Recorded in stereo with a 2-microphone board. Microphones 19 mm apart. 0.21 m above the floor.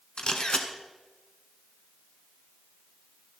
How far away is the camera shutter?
About 1.2 m.